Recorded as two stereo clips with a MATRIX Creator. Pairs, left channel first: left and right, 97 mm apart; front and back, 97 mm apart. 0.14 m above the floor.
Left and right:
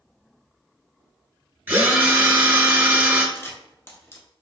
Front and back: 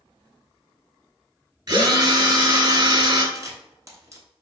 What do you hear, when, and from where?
1.7 s a drill: 155° right, 1.0 m
3.4 s a camera shutter: 140° left, 0.8 m